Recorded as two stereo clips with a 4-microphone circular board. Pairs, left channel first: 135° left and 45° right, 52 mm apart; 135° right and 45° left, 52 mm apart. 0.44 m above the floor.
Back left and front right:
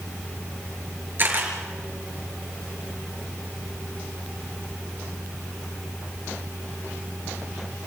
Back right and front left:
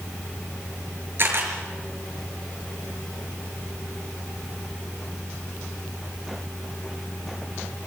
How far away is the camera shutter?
About 5 m.